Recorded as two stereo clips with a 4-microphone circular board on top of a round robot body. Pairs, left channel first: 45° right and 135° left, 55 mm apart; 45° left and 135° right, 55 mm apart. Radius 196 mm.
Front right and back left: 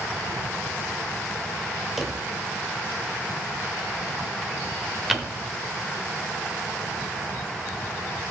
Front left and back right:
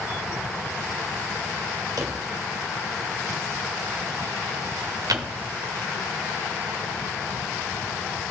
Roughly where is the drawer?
Behind right.